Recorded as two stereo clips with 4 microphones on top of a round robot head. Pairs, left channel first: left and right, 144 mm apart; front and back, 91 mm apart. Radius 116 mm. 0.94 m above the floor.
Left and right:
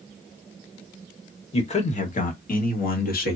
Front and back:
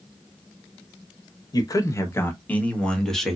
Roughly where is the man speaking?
Ahead left.